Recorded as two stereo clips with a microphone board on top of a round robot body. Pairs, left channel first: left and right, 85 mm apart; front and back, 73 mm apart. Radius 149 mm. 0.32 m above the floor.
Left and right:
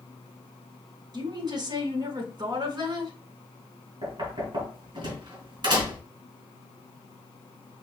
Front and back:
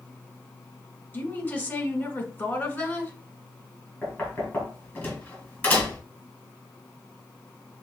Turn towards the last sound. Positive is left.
turn(degrees=-70)